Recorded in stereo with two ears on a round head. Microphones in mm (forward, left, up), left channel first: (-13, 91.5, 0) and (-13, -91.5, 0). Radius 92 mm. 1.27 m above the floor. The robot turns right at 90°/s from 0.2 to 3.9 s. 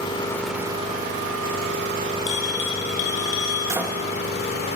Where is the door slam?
15° right (ahead or behind), 0.7 m; by 4.0 s centre (ahead or behind), 0.7 m.